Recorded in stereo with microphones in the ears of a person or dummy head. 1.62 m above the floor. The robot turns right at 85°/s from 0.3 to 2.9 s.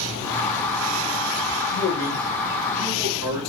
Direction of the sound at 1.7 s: 95° left.